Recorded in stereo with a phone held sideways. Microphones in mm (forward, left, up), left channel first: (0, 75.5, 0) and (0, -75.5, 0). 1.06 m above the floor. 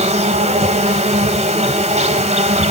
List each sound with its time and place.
0.0 s an insect: 50° right (ahead or behind), 1.9 m